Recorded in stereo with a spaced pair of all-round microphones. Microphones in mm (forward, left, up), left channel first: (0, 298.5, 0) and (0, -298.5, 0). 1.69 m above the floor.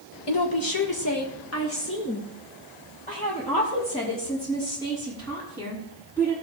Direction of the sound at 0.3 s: 45° left (ahead or behind).